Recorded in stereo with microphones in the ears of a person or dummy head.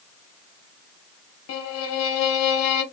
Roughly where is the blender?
No blender in this recording.